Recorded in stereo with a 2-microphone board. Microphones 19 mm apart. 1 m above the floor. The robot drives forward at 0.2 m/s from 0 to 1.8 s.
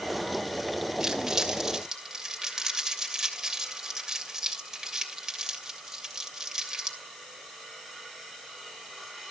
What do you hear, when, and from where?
1.0 s crumpling: 30° right (ahead or behind), 2.5 m; by 7.0 s 25° right (ahead or behind), 2.5 m